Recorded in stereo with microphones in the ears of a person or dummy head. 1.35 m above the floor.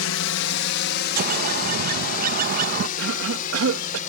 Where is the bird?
50° right (ahead or behind).